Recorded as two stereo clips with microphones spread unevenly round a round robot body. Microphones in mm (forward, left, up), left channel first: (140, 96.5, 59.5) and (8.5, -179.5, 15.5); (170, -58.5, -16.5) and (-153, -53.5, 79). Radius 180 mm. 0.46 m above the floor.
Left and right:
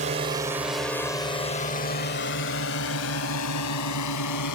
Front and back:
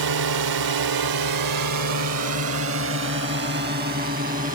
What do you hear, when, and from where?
0.0 s a drone: 175° right; by 4.5 s 105° left